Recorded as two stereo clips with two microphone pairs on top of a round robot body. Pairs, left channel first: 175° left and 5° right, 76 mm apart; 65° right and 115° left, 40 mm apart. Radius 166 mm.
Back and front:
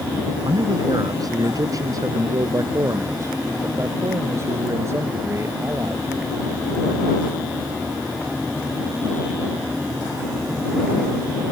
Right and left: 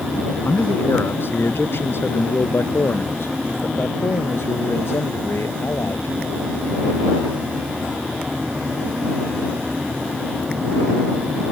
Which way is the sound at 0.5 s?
35° right.